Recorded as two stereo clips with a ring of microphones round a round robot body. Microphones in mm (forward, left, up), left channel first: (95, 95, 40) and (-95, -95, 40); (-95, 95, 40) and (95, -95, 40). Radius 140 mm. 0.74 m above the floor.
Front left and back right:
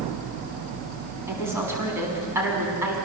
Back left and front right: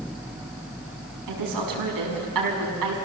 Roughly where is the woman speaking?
Ahead right.